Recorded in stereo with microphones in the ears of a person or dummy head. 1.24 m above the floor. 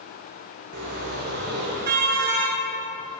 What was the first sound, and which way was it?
A car horn, 55° right (ahead or behind).